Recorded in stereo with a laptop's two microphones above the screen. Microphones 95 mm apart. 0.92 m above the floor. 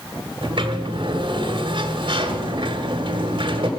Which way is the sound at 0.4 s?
60° right (ahead or behind).